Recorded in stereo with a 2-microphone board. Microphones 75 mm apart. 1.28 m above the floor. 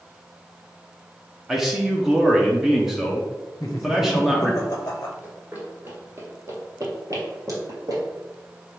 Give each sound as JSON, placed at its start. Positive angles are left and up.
{"t": 1.5, "sound": "a man speaking", "side_deg": -5, "distance_m": 0.7}
{"t": 3.6, "sound": "laughter", "side_deg": 40, "distance_m": 0.7}
{"t": 5.2, "sound": "running footsteps", "side_deg": -20, "distance_m": 1.4}